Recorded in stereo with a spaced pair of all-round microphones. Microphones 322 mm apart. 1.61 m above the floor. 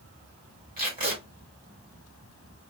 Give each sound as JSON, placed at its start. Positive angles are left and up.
{"t": 0.8, "sound": "tape being pulled", "side_deg": -30, "distance_m": 2.0}